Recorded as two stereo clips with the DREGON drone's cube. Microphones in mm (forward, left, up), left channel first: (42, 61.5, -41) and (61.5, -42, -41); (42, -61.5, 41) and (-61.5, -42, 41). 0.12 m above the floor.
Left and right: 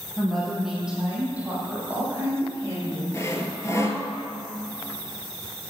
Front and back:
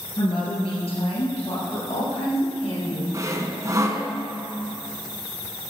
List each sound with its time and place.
0.2 s a woman speaking: 20° left, 2.5 m; by 3.0 s 20° right, 5 m
3.1 s sawing: 135° left, 1.0 m